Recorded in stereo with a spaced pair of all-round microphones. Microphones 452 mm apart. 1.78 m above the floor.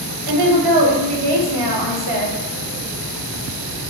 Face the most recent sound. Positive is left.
turn(degrees=-55)  # may be behind; listen again after turning